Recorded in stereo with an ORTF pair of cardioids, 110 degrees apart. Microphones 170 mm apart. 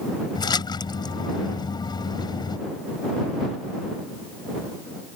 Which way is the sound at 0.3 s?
25° left.